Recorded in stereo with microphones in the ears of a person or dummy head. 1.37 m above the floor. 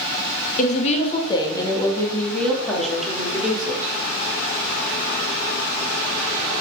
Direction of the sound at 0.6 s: 40° left (ahead or behind).